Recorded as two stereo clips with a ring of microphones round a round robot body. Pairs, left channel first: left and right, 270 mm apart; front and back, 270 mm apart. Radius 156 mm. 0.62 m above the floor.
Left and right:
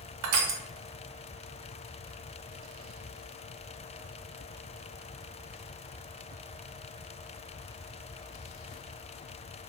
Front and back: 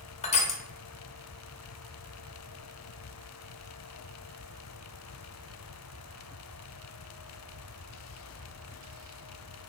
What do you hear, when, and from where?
0.2 s crushing: 65° right, 0.5 m